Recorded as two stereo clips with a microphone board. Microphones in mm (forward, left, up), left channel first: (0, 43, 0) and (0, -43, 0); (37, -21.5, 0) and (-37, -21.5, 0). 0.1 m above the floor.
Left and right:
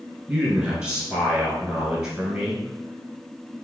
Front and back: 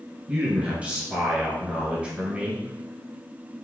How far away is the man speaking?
About 1.8 m.